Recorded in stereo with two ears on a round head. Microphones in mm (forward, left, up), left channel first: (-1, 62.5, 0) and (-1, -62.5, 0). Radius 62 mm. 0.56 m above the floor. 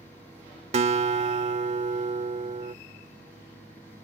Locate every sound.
0.7 s a guitar: 45° right (ahead or behind)